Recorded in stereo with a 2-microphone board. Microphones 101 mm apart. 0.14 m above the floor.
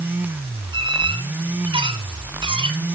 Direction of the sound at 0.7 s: 55° right (ahead or behind).